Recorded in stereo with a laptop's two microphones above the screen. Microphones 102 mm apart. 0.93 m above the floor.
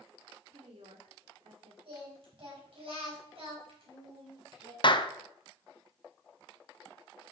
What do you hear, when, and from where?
0.5 s a woman speaking: 75° right (ahead or behind), 2 m
1.9 s singing: 60° right (ahead or behind), 4.5 m
4.8 s a clap: 50° left (ahead or behind), 0.6 m